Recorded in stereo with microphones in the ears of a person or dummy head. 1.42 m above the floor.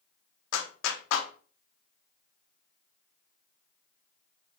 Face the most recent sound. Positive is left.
turn(degrees=75)  # may be behind; listen again after turning